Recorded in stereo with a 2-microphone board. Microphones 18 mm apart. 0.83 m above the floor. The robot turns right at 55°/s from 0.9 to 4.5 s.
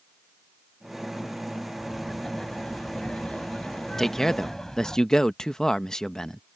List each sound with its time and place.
1.8 s laughter: 5° left; by 5.0 s 155° left
4.0 s a man speaking: 20° left (ahead or behind); by 6.4 s 30° left (ahead or behind)